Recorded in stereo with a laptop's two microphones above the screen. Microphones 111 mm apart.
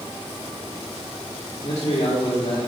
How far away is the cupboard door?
No cupboard door in this recording.